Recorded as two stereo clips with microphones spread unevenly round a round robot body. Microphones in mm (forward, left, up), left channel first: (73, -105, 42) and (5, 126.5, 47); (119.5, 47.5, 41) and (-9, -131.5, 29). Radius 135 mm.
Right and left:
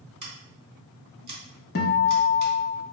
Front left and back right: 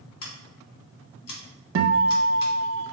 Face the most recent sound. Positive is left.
turn(degrees=-130)